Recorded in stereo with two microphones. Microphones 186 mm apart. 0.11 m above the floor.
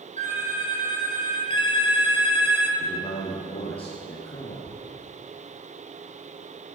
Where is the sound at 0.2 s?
40° right (ahead or behind), 3.5 m.